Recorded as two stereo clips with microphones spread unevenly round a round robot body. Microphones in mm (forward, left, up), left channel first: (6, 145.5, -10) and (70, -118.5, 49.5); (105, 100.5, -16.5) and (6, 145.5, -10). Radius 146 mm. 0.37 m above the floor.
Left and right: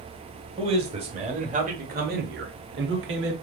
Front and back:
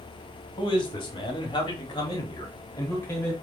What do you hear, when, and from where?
0.6 s a man speaking: straight ahead, 1.9 m; by 3.3 s 70° right, 1.1 m